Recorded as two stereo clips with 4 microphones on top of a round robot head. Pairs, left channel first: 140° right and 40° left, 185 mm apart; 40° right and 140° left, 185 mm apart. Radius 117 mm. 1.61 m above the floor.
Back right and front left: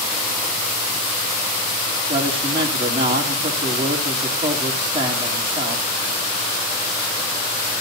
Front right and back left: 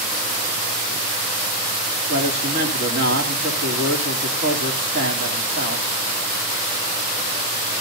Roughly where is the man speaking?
Left.